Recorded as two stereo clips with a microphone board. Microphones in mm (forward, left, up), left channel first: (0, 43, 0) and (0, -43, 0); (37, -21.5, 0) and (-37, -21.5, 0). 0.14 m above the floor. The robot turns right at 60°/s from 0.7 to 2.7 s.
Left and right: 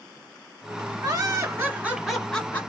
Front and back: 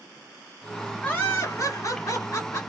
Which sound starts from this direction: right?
Laughter, at 1.0 s.